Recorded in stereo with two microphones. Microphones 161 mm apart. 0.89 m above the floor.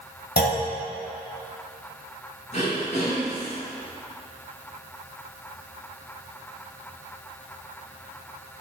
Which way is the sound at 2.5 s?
45° left (ahead or behind).